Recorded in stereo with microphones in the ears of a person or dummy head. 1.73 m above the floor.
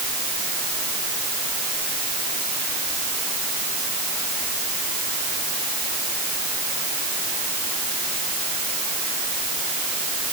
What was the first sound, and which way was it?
Only background noise.